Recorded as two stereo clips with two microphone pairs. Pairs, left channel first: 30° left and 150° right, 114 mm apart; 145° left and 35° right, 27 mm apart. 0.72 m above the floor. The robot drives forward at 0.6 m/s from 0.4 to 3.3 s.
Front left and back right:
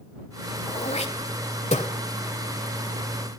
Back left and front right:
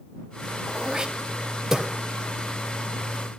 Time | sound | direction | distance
0.7 | throat clearing | 25° left | 1.9 m